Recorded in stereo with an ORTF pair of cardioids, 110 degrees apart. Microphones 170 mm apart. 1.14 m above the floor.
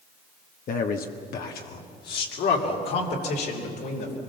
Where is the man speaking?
50° left, 1.2 m; by 4.1 s 75° left, 4 m.